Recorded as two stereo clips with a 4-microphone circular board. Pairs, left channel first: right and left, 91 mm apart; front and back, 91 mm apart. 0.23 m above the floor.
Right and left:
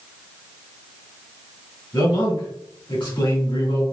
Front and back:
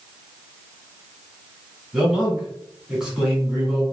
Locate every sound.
1.9 s a man speaking: 100° right, 1.9 m